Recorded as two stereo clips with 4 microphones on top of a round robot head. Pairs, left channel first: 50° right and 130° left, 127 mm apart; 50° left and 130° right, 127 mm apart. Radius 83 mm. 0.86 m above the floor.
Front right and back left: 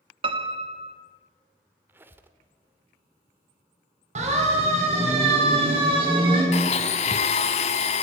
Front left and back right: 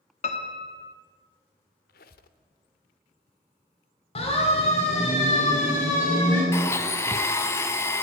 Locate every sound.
0.2 s a piano: 85° left, 1.9 m
1.9 s a squeak: 55° left, 1.2 m
4.2 s a siren: 95° left, 5 m; by 6.4 s 80° left, 7.5 m
6.5 s a blender: 20° right, 1.1 m